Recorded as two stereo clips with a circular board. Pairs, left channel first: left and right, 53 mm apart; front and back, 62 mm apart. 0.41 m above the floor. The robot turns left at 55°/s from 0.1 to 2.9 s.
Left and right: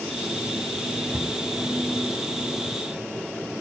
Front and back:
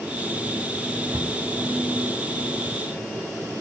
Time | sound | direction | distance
1.1 | a cupboard door | 150° right | 3 m